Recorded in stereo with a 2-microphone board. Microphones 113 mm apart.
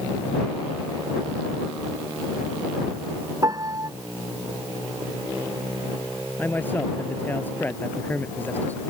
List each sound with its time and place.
3.4 s a piano: 35° right (ahead or behind)
6.4 s a man speaking: 15° left (ahead or behind)